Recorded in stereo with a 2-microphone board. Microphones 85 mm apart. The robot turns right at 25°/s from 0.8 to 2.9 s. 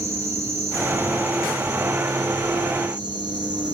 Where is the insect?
140° right, 3 m; by 3.7 s 90° right, 3 m.